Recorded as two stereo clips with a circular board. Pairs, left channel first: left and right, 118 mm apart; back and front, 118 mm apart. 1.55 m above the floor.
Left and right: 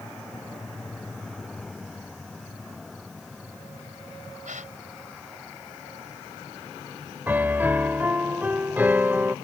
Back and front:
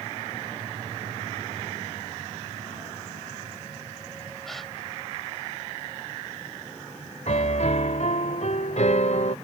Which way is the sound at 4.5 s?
90° right.